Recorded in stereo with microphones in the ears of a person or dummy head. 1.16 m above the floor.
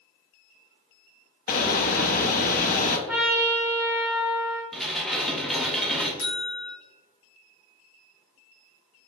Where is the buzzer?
65° left (ahead or behind), 1.2 m.